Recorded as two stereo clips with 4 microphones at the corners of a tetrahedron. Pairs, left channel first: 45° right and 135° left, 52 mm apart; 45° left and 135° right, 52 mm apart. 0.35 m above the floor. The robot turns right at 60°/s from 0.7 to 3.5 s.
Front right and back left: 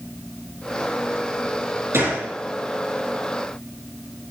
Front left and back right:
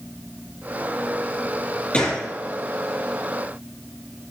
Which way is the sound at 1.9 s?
110° left.